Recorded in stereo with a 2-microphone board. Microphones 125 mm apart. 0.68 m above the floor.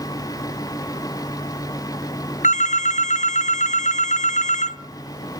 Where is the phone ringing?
70° left (ahead or behind), 0.5 m.